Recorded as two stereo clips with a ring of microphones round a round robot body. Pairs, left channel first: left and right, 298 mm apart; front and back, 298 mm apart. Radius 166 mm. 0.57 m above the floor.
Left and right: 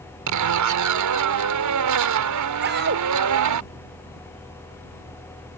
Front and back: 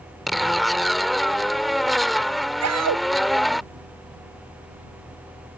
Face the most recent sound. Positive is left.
turn(degrees=-150)